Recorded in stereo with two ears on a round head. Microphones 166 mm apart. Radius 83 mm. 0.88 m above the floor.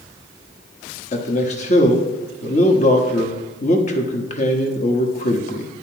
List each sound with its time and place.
1.1 s a man speaking: 40° left (ahead or behind), 1.1 m